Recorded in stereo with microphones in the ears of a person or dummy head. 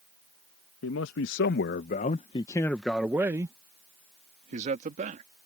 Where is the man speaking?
75° left (ahead or behind); by 5.2 s 45° right (ahead or behind).